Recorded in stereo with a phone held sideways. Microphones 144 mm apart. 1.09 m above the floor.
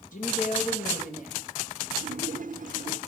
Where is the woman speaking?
65° left (ahead or behind), 1.6 m.